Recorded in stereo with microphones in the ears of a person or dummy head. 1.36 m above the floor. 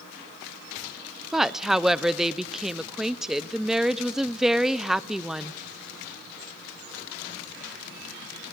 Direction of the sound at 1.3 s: Centre (ahead or behind).